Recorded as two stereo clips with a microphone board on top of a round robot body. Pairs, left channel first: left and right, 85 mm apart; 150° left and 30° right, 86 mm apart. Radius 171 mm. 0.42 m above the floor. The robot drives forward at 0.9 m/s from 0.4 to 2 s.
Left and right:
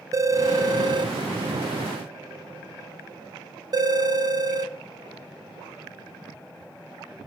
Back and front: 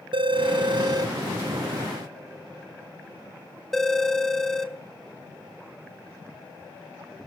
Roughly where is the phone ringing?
Ahead right.